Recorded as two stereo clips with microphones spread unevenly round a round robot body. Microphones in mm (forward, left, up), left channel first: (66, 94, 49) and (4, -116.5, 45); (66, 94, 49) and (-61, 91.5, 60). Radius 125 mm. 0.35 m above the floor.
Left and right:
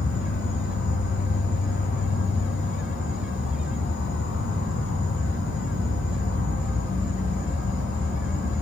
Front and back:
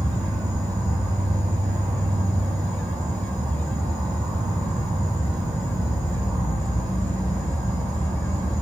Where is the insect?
115° left, 0.8 m.